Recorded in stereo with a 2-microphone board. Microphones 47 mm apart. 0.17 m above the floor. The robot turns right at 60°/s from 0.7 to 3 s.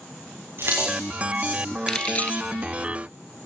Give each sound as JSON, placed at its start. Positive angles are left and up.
{"t": 0.6, "sound": "keys jangling", "side_deg": -55, "distance_m": 9.0}
{"t": 1.9, "sound": "keys jangling", "side_deg": 15, "distance_m": 2.5}